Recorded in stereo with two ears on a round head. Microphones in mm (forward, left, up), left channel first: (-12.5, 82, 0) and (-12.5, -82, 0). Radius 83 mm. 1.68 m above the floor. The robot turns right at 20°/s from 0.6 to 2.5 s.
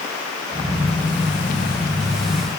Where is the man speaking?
I don't hear a man speaking.